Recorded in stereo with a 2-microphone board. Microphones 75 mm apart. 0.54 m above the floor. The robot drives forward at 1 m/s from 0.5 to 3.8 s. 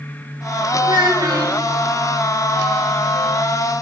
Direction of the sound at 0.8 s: 75° right (ahead or behind).